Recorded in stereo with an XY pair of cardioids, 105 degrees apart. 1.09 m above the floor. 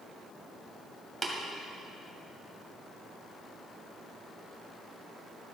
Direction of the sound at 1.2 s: 15° right.